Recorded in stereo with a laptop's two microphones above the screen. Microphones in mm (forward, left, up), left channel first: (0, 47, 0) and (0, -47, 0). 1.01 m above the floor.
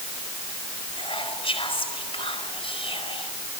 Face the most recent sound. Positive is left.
turn(degrees=80)